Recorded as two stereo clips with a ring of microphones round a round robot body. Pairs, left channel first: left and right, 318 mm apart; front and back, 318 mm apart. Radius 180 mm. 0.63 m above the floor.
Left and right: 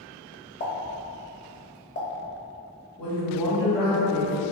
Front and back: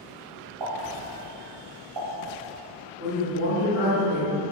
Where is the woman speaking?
5° left, 1.2 m.